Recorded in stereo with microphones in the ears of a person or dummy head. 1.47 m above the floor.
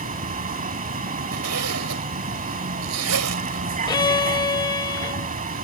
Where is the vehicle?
40° right (ahead or behind).